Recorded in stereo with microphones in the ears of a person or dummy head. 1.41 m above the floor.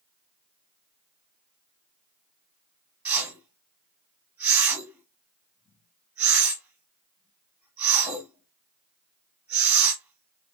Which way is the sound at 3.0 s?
5° right (ahead or behind).